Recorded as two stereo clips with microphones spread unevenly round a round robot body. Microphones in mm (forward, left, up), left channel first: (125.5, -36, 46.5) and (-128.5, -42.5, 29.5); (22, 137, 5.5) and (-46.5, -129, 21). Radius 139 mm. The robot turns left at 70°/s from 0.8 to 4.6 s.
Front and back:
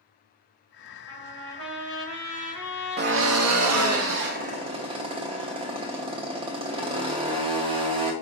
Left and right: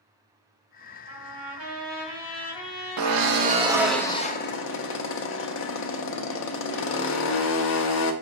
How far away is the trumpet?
About 1.4 m.